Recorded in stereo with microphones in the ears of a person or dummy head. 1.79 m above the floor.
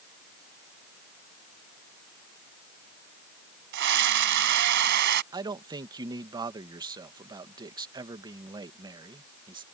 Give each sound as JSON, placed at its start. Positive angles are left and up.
{"t": 3.7, "sound": "a scream", "side_deg": -55}
{"t": 5.3, "sound": "a man speaking", "side_deg": -20}